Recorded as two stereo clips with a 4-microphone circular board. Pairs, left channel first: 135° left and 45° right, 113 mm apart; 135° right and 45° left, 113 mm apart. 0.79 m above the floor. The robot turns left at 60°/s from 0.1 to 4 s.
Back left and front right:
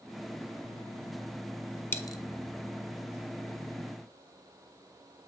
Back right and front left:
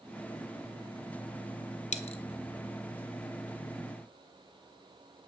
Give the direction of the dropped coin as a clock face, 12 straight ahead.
5 o'clock.